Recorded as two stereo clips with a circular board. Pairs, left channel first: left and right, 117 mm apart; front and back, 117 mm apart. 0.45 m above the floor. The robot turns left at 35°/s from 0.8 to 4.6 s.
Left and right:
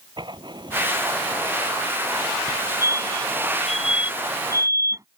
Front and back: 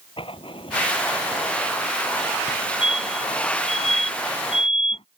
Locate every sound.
0.2 s writing: 40° right; by 2.4 s 95° right
2.5 s a fire alarm: 45° left; by 5.0 s 30° right